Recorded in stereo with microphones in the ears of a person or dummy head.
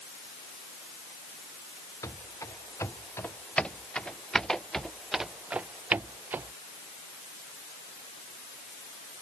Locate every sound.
2.0 s running footsteps: 10° left (ahead or behind); by 6.5 s 15° right (ahead or behind)